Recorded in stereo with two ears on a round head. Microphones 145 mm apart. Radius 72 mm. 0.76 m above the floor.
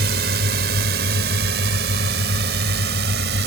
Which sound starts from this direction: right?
A drone, at 0.0 s.